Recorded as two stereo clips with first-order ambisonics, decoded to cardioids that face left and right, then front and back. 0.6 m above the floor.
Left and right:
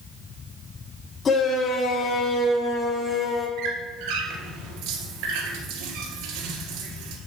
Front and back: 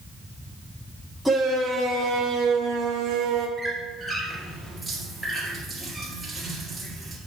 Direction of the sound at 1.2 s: 80° left.